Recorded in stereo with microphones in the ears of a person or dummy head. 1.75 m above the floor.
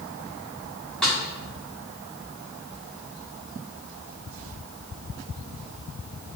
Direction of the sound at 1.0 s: 5° left (ahead or behind).